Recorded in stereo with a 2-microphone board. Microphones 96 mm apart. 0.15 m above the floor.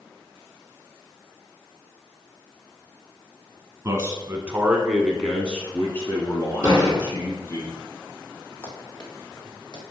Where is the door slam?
15° right (ahead or behind), 3.5 m.